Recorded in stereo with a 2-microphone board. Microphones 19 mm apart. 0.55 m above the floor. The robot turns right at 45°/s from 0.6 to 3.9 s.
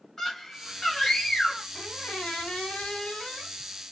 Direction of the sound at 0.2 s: 35° left.